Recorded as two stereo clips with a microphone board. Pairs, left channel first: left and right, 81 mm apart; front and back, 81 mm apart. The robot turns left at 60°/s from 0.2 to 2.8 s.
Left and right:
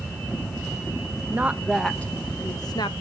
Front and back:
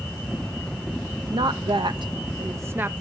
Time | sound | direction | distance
1.3 | a woman speaking | 155° right | 1.2 m